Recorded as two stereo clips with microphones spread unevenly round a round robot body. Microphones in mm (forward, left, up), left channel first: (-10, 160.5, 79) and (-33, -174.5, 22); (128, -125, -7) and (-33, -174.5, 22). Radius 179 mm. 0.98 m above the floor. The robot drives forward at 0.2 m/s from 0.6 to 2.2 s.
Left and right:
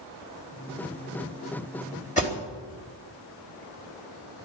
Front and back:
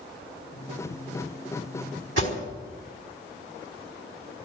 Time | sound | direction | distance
2.2 | an alarm | 160° left | 3.5 m